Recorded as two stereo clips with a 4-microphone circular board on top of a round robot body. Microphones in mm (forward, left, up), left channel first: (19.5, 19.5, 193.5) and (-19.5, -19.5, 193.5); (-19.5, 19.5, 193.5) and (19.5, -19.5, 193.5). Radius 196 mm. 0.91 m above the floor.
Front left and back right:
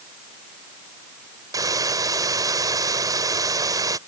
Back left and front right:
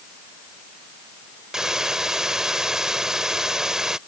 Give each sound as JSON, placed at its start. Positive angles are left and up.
{"t": 1.5, "sound": "a hiss", "azimuth_deg": -125}